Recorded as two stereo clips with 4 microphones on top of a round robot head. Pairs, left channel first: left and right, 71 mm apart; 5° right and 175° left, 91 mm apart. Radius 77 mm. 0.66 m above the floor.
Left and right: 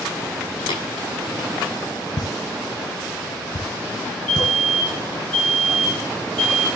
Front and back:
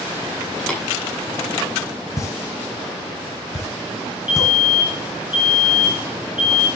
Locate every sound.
0.7 s tapping: 75° left, 7.5 m
2.2 s a pop: 55° left, 2 m
4.3 s a fire alarm: 15° left, 5 m